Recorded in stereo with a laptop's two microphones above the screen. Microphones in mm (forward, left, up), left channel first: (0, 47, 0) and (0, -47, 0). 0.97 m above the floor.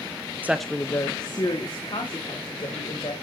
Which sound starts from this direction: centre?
A woman speaking, at 0.4 s.